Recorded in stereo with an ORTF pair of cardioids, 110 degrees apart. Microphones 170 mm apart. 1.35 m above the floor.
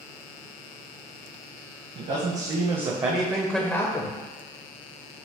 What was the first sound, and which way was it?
A man speaking, 50° right.